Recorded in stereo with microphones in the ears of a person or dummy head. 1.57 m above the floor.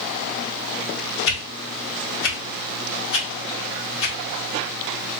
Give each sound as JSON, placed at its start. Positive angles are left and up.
{"t": 1.3, "sound": "a whoosh", "side_deg": 65, "distance_m": 1.1}